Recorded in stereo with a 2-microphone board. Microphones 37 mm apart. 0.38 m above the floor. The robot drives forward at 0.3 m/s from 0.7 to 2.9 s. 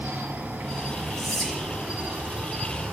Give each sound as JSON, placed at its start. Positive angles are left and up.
{"t": 0.0, "sound": "an insect", "side_deg": -75, "distance_m": 1.6}
{"t": 1.2, "sound": "whispering", "side_deg": 0, "distance_m": 5.5}